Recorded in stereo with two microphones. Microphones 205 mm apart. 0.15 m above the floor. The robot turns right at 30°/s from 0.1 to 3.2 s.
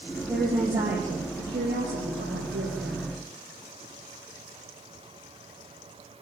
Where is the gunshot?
No gunshot in this recording.